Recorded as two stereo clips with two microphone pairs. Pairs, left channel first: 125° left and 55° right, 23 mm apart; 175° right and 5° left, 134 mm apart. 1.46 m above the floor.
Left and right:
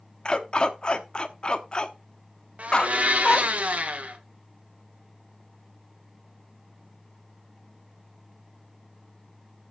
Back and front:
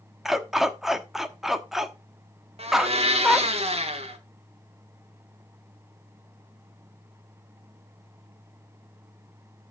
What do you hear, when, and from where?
0.2 s a dog barking: 95° left, 1.1 m
2.6 s a blender: 35° right, 2.0 m